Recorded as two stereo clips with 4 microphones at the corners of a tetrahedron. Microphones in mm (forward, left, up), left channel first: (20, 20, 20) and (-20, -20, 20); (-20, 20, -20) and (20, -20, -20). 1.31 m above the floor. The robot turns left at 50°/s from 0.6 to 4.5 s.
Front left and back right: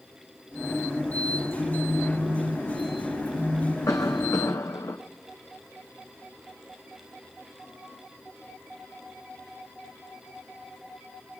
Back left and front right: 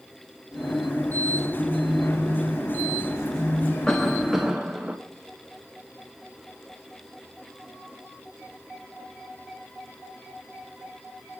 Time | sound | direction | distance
1.4 | a phone buzzing | 160° right | 7 m
3.9 | a cough | 60° left | 0.8 m